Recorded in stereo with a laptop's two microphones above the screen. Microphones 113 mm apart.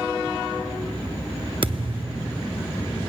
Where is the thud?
50° right (ahead or behind), 0.8 m.